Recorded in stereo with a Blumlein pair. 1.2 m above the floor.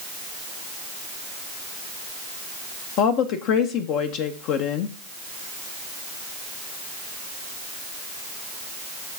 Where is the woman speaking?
40° left, 0.7 m.